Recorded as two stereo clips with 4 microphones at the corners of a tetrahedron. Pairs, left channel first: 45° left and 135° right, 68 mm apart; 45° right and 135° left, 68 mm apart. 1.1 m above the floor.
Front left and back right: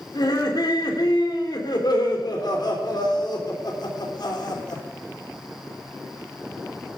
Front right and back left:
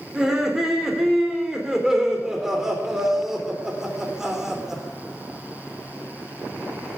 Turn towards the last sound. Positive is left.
turn(degrees=50)